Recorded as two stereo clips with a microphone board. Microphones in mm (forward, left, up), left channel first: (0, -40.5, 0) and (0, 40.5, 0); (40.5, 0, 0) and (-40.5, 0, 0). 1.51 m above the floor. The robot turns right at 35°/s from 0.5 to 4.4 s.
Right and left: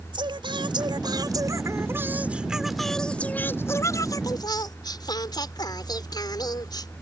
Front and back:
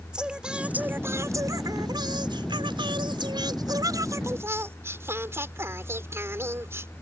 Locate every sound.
0.1 s singing: 100° left; by 6.9 s 125° right